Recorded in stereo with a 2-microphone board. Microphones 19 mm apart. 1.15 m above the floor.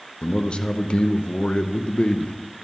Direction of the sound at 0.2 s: 70° left (ahead or behind).